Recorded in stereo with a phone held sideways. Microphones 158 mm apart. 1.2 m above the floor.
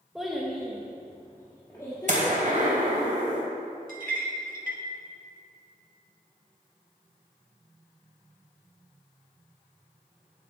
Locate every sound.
0.1 s a child speaking: 5° right (ahead or behind), 1.0 m; by 3.1 s 30° left (ahead or behind), 2.5 m
2.1 s a gunshot: 55° right (ahead or behind), 2.5 m
3.9 s a clink: 70° right (ahead or behind), 1.4 m